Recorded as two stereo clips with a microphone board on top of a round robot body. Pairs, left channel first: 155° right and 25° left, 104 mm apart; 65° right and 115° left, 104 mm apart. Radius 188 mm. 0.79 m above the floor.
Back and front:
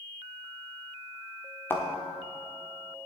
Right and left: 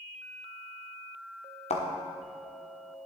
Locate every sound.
1.7 s a thud: 85° right, 1.3 m